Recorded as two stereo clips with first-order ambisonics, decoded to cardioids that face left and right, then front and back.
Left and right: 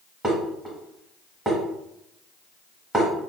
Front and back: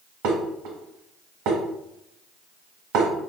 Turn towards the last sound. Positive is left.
turn(degrees=-170)